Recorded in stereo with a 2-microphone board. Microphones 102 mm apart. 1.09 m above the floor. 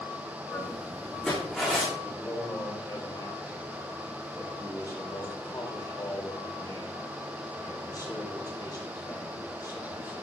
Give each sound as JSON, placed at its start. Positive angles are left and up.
{"t": 0.5, "sound": "footsteps", "side_deg": 15, "distance_m": 5.5}
{"t": 2.0, "sound": "a man speaking", "side_deg": 40, "distance_m": 5.0}